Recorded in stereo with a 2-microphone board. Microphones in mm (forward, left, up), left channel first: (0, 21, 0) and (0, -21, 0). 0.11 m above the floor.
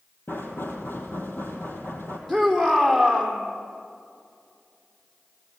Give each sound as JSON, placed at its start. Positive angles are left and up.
{"t": 0.3, "sound": "knocking", "side_deg": 65, "distance_m": 3.5}
{"t": 2.3, "sound": "a shout", "side_deg": 10, "distance_m": 4.0}